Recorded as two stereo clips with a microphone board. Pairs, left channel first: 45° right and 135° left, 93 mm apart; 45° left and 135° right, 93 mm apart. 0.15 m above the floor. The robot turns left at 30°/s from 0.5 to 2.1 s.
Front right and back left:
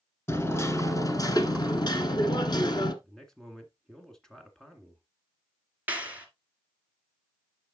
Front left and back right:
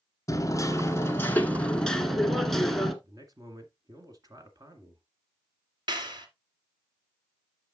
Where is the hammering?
5° left, 1.2 m; by 2.9 s 40° right, 1.2 m.